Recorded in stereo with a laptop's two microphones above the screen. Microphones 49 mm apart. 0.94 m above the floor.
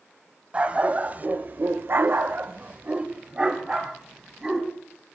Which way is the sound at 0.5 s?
30° right (ahead or behind).